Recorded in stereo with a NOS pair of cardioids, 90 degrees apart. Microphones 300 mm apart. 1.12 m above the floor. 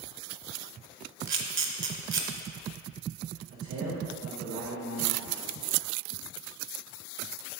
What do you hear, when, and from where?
1.3 s a camera shutter: 40° right, 0.9 m
3.5 s a man speaking: 65° right, 1.9 m